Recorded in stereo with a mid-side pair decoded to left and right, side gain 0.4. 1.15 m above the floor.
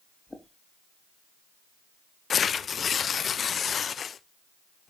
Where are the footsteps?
15° left, 3.5 m.